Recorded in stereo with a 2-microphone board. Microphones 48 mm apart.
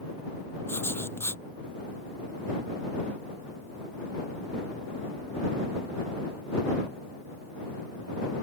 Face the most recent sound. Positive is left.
turn(degrees=55)  # may be behind; listen again after turning